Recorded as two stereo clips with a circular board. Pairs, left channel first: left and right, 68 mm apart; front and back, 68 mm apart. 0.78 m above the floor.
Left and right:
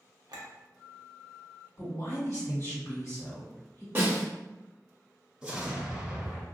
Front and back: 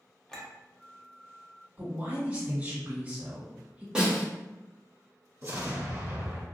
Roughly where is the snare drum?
Behind right.